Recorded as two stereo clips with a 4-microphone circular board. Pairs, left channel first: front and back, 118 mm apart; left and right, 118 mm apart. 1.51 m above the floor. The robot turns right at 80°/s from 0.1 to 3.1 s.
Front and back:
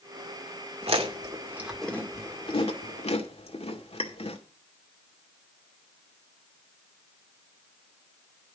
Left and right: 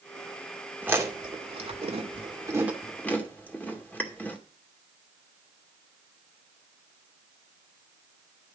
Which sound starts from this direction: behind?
Chewing, at 0.8 s.